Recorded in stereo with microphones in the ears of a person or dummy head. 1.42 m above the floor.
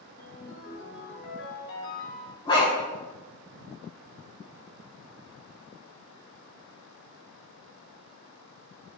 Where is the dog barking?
20° left (ahead or behind), 5 m.